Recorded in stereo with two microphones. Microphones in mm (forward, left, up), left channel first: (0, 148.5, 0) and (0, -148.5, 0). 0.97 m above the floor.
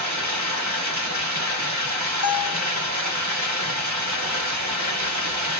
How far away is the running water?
About 1.2 m.